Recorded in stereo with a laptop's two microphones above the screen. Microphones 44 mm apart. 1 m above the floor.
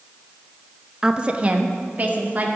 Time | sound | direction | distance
1.0 | a woman speaking | 15° right (ahead or behind) | 0.9 m